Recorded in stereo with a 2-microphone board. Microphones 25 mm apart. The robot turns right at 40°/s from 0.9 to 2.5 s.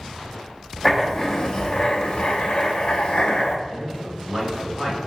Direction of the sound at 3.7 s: 35° right (ahead or behind).